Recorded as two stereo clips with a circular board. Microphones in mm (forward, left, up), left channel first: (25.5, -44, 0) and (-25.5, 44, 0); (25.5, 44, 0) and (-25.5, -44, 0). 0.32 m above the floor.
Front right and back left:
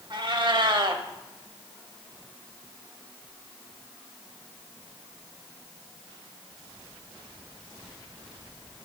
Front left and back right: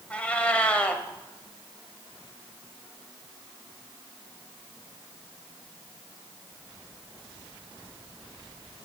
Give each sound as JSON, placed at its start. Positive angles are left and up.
{"t": 0.1, "sound": "a cat meowing", "azimuth_deg": 130, "distance_m": 0.7}